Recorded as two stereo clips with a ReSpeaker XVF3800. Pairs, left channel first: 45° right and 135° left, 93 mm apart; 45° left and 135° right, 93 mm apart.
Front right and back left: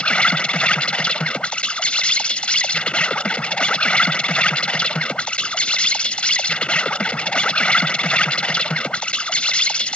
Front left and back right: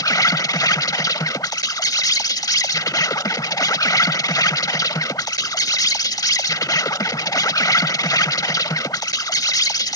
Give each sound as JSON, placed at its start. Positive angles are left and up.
{"t": 0.0, "sound": "an insect", "azimuth_deg": 25}